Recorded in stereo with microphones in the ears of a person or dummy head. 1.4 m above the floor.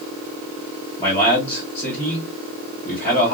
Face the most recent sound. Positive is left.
turn(degrees=20)  # may be behind; listen again after turning